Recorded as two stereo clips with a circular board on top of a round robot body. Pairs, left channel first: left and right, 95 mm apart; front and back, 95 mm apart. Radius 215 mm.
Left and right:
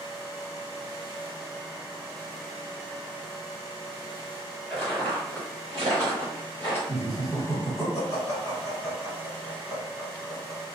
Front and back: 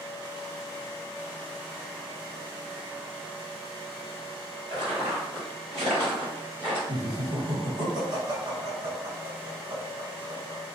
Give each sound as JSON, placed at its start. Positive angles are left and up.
{"t": 4.7, "sound": "footsteps", "azimuth_deg": 170, "distance_m": 1.4}
{"t": 6.9, "sound": "laughter", "azimuth_deg": 140, "distance_m": 1.9}